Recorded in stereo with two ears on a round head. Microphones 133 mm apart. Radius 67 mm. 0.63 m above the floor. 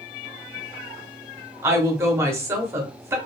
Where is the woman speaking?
20° right (ahead or behind), 1.0 m.